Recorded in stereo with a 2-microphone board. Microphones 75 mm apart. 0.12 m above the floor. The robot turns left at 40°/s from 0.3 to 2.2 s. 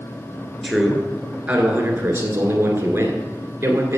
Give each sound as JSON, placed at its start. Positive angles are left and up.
{"t": 0.6, "sound": "a man speaking", "azimuth_deg": 5, "distance_m": 1.6}